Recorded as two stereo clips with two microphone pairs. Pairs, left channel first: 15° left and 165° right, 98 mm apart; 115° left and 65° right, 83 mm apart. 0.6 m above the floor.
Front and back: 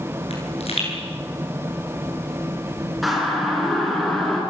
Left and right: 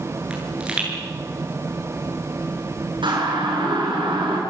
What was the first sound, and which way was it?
A pop, 15° left.